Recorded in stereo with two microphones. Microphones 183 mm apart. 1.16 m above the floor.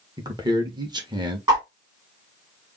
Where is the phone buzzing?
I don't hear a phone buzzing.